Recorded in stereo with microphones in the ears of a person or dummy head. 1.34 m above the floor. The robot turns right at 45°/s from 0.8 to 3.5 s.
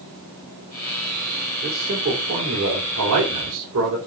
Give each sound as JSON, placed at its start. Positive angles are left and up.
{"t": 1.6, "sound": "a man speaking", "azimuth_deg": -155, "distance_m": 3.5}